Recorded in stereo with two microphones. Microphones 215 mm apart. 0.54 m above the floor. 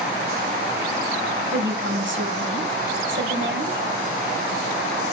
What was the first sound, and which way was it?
A woman speaking, 60° right (ahead or behind).